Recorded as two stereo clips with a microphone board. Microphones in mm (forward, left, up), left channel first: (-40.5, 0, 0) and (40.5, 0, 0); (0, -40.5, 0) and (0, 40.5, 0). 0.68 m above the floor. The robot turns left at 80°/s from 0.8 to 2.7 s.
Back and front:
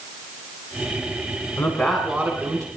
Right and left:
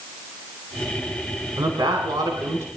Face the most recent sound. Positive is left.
turn(degrees=40)